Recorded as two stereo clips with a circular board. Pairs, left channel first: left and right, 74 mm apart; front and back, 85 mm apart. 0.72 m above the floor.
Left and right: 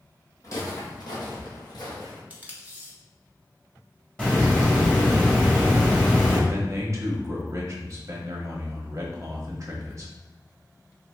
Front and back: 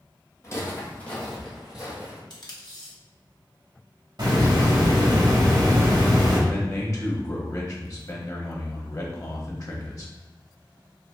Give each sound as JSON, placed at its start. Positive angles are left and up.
{"t": 0.4, "sound": "footsteps", "azimuth_deg": 50, "distance_m": 1.8}
{"t": 2.3, "sound": "tape being pulled", "azimuth_deg": -25, "distance_m": 1.1}
{"t": 4.2, "sound": "a hiss", "azimuth_deg": 165, "distance_m": 1.7}
{"t": 6.5, "sound": "a man speaking", "azimuth_deg": -45, "distance_m": 1.1}